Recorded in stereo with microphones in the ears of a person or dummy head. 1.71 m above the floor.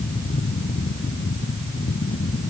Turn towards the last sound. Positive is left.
No sound to turn to.